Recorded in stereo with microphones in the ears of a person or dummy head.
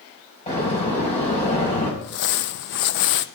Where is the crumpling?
50° left (ahead or behind), 0.7 m.